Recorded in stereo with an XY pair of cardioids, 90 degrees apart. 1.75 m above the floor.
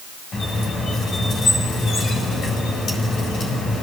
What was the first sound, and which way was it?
A squeak, 60° left.